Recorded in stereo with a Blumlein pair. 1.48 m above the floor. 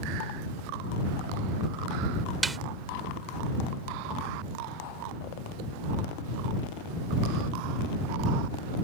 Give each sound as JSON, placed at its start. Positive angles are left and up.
{"t": 2.4, "sound": "a snare drum", "azimuth_deg": -10}